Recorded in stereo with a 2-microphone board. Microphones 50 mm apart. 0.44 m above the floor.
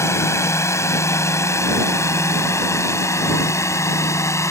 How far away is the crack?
I don't hear a crack.